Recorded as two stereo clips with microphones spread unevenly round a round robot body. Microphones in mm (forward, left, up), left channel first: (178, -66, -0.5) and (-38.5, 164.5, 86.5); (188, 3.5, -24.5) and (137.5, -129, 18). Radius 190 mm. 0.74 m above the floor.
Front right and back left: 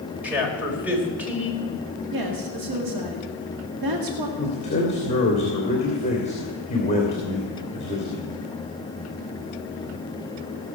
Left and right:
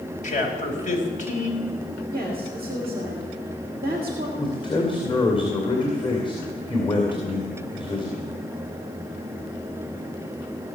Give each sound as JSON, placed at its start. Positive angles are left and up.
{"t": 0.2, "sound": "a man speaking", "azimuth_deg": 45, "distance_m": 3.5}
{"t": 2.1, "sound": "a woman speaking", "azimuth_deg": 160, "distance_m": 2.0}
{"t": 4.4, "sound": "a man speaking", "azimuth_deg": 20, "distance_m": 2.5}